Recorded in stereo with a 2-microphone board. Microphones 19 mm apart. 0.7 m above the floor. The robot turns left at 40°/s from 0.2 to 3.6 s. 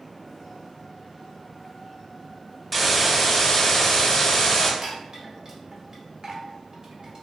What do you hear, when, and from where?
2.7 s a hiss: straight behind, 0.6 m; by 4.7 s 145° left, 0.6 m
4.8 s a chime: 40° right (ahead or behind), 0.9 m